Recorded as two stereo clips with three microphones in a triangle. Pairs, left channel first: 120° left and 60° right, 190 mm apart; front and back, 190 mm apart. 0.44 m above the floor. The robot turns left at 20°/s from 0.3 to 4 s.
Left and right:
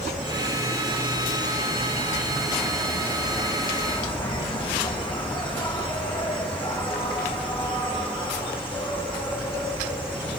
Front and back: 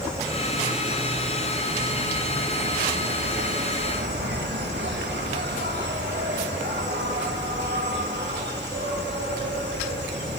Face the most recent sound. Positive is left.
turn(degrees=180)